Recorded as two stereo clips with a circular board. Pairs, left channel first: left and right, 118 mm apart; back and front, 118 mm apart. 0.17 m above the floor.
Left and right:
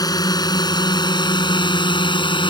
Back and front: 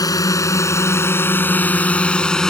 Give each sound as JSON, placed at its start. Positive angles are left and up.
{"t": 0.0, "sound": "a drone", "azimuth_deg": 135}